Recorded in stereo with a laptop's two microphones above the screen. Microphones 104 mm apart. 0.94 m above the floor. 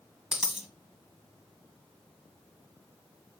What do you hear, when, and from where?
0.3 s a dropped coin: 5° right (ahead or behind), 1.2 m